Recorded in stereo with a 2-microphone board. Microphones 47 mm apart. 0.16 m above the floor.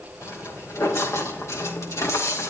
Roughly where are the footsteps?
Left.